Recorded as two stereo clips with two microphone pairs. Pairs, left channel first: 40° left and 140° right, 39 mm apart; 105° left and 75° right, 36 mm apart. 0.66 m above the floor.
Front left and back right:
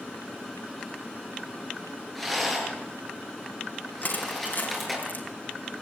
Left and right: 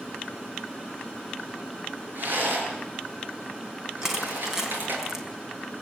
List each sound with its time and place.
2.1 s a rattle: 50° right, 7.5 m
4.0 s crushing: 5° left, 4 m